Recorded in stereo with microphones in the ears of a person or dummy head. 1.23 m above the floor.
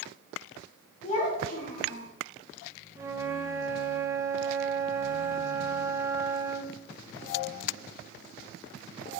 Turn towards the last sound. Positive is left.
turn(degrees=-20)  # may be behind; listen again after turning